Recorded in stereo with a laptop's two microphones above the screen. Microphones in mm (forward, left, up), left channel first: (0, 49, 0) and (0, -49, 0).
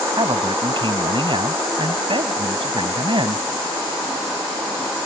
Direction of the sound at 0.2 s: 60° right (ahead or behind).